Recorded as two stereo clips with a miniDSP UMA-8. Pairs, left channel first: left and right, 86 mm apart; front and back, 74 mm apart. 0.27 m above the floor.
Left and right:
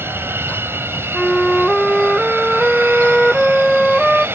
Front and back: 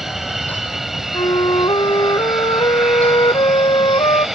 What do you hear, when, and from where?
0.0 s an aircraft: 100° right
1.1 s a flute: straight ahead